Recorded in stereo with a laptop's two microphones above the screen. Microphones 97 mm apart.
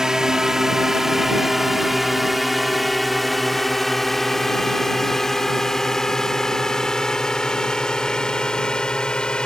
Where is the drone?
5° right (ahead or behind); by 9.5 s 10° left (ahead or behind).